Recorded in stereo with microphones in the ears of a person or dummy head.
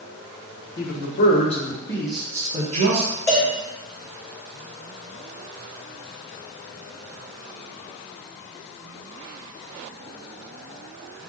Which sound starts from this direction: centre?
A cowbell, at 3.3 s.